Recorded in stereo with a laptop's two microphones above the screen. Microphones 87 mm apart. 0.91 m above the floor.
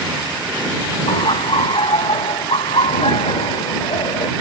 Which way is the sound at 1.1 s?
75° left (ahead or behind).